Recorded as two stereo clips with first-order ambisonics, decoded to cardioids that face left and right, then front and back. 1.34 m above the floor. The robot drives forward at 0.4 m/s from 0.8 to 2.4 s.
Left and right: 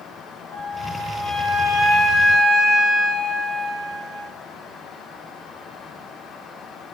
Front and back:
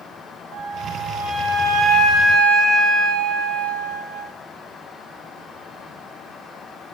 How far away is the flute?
About 0.9 m.